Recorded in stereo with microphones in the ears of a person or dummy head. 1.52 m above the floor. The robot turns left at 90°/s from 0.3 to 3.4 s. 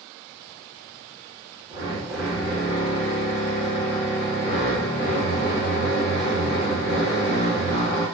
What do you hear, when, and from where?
1.7 s a drill: 120° right, 0.9 m; by 8.1 s 90° left, 0.9 m